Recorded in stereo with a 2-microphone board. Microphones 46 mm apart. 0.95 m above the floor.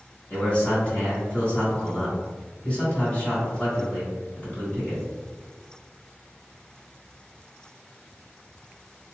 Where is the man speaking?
25° left (ahead or behind), 1.9 m.